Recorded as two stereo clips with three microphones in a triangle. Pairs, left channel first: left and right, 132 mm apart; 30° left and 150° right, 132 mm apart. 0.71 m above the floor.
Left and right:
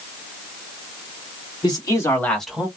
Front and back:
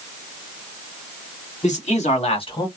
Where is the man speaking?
40° left, 1.9 m; by 2.7 s 15° right, 1.2 m.